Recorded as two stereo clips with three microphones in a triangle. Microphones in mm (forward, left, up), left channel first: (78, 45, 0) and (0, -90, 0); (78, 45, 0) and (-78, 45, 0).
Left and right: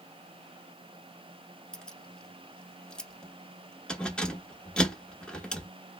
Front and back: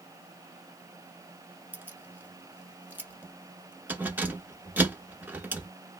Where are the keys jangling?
130° left, 0.8 m.